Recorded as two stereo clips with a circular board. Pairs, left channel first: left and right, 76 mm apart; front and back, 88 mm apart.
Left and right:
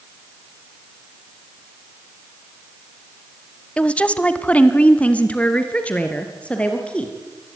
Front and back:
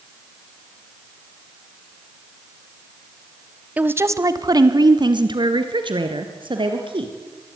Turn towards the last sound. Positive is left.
turn(degrees=165)